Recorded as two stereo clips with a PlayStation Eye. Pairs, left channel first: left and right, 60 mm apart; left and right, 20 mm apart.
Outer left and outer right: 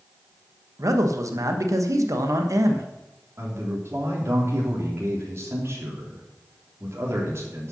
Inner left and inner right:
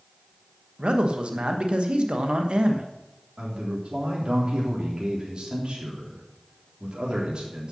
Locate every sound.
0.8 s a man speaking: 60° right (ahead or behind), 1.2 m
3.4 s a man speaking: 45° right (ahead or behind), 3.5 m